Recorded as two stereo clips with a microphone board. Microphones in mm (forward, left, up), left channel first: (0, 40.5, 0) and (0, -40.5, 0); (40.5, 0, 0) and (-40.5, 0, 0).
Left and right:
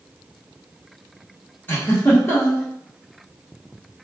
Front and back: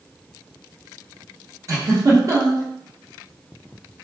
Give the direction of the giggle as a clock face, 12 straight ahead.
7 o'clock.